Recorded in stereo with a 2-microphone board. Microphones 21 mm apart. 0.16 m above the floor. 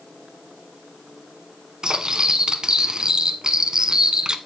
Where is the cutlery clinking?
35° right (ahead or behind), 0.8 m.